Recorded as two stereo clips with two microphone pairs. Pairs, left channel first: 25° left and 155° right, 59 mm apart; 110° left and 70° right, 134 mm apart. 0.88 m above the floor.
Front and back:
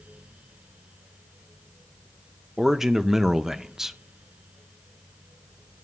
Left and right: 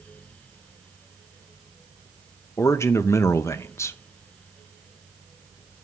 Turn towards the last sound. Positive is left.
turn(degrees=135)